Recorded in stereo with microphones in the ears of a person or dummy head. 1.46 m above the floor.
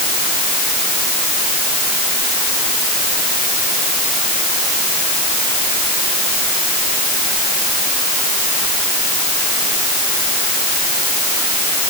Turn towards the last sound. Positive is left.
No sound to turn to.